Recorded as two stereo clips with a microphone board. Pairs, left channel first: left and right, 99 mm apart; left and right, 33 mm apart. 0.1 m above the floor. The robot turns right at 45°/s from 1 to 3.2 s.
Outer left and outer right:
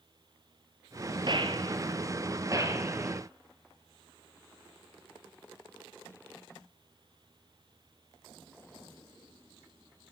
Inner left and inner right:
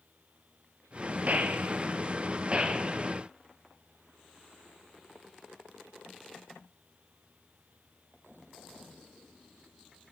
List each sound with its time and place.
1.3 s a gunshot: 50° right (ahead or behind), 1.0 m; by 3.2 s 15° right (ahead or behind), 1.0 m